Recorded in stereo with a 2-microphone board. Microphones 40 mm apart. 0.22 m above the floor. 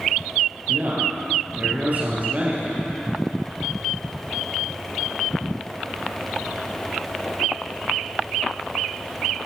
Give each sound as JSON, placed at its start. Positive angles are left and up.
{"t": 0.7, "sound": "a man speaking", "side_deg": -50, "distance_m": 4.0}